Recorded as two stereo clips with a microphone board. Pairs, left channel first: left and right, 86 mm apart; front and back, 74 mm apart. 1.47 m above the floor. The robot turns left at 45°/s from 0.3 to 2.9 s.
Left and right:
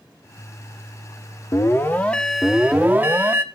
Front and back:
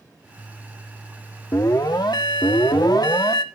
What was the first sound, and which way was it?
An alarm, 40° left.